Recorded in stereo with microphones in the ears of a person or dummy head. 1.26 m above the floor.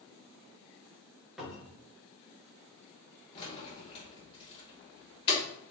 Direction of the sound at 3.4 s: 30° left (ahead or behind).